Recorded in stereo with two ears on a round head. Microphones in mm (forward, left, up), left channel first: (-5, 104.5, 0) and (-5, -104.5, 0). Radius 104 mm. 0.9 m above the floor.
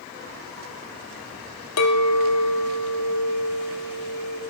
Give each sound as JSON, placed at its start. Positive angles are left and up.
{"t": 1.8, "sound": "a clink", "side_deg": 75, "distance_m": 0.9}